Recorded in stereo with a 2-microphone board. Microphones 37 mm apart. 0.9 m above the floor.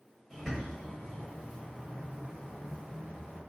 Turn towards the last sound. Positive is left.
turn(degrees=-5)  # may be behind; listen again after turning